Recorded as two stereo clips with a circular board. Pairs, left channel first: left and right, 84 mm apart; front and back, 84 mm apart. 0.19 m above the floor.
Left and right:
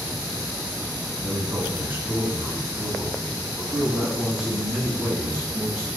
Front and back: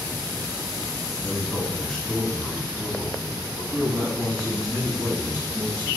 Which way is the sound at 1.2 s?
55° right.